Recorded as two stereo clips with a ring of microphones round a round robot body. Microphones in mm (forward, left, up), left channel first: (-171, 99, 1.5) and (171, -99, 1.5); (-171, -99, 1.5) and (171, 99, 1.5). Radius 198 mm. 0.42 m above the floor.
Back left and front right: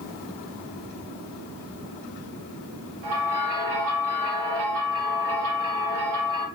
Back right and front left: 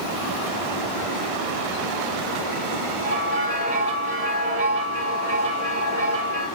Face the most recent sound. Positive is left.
turn(degrees=-5)